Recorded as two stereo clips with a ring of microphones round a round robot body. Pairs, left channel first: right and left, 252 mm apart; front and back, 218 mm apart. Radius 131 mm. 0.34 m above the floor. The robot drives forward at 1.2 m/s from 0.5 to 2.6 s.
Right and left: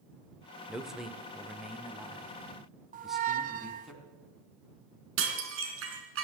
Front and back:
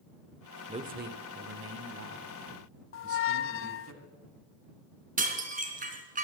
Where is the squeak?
30° left, 0.7 m.